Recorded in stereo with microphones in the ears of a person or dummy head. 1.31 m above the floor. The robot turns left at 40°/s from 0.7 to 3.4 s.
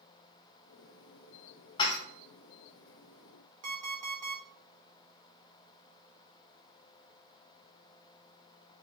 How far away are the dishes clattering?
About 0.9 m.